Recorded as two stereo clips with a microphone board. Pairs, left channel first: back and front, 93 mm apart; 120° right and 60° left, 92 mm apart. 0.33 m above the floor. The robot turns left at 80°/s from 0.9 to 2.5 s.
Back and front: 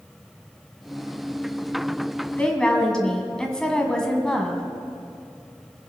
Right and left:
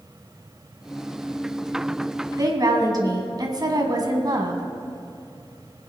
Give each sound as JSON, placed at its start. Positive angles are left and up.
{"t": 2.4, "sound": "a woman speaking", "azimuth_deg": 110, "distance_m": 2.0}